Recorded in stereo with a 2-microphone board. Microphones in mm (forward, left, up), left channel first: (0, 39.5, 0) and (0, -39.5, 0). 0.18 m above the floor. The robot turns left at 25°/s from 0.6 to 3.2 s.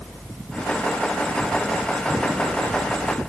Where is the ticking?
I don't hear ticking.